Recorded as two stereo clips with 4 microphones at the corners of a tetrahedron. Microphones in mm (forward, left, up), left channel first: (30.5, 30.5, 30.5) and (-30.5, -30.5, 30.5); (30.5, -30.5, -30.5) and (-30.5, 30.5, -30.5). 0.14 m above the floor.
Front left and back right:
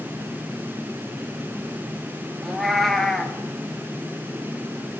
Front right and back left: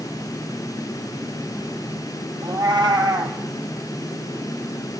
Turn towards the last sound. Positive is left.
turn(degrees=130)